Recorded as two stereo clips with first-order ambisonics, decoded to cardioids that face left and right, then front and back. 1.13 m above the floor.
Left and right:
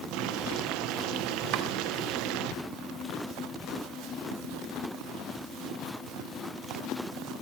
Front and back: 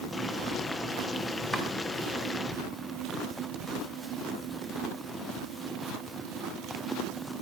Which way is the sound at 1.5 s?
100° right.